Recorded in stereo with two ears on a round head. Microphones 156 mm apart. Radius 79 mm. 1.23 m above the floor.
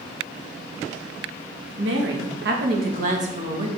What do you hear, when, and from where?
1.8 s a woman speaking: 75° right (ahead or behind), 2 m; by 3.7 s 35° right (ahead or behind), 2.5 m